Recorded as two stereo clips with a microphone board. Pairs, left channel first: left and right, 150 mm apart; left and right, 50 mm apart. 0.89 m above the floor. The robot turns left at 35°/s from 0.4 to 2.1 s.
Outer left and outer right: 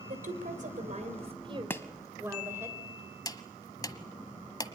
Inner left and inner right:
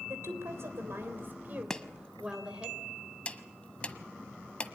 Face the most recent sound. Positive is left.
turn(degrees=30)  # may be behind; listen again after turning